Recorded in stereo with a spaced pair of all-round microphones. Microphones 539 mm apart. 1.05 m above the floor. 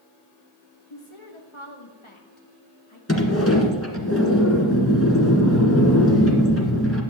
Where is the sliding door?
25° left (ahead or behind), 2.0 m.